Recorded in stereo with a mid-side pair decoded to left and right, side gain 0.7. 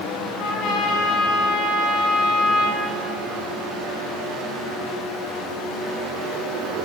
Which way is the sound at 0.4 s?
60° left.